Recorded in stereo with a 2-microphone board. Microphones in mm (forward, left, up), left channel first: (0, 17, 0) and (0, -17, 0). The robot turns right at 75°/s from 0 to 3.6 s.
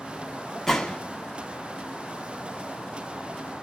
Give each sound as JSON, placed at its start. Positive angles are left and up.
{"t": 0.7, "sound": "a gunshot", "side_deg": 10, "distance_m": 0.7}